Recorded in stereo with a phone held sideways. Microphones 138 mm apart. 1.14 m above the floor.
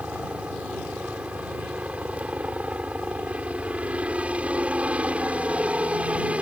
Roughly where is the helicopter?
Centre.